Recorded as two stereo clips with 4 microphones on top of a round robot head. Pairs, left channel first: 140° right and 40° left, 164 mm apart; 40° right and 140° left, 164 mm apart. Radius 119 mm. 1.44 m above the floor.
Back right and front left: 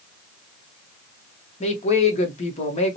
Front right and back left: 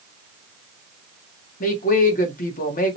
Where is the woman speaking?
85° right, 1.1 m.